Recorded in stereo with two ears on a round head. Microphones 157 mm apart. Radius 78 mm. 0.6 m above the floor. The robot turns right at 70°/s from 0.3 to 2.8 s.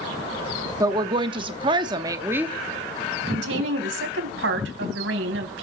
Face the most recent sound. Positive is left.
turn(degrees=-80)